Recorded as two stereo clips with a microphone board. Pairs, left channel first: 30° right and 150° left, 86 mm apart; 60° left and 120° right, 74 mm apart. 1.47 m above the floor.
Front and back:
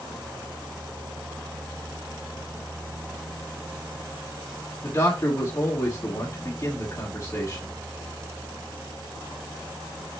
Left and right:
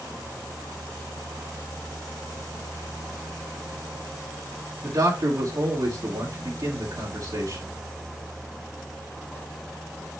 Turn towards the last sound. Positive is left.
turn(degrees=-90)